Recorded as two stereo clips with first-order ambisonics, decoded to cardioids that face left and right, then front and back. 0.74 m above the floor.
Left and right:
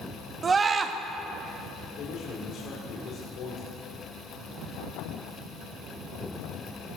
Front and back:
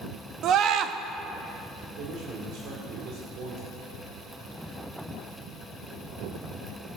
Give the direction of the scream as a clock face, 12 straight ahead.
5 o'clock.